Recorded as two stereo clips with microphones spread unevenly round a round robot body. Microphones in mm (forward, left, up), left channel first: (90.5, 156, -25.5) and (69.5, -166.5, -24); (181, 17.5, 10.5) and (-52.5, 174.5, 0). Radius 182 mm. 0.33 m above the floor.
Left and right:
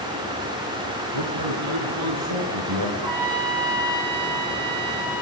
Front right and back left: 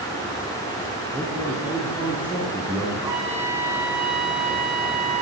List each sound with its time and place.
1.1 s a man speaking: 130° right, 5.5 m
3.0 s a trumpet: 135° right, 9 m